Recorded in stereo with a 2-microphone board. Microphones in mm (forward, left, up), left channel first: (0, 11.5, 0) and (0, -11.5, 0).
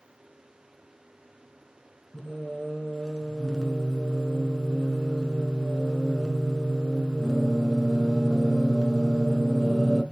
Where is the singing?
25° left (ahead or behind), 0.7 m.